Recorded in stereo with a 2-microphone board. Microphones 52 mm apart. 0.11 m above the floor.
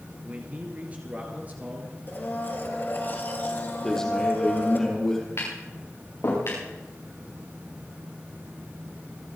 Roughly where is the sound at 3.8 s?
Centre.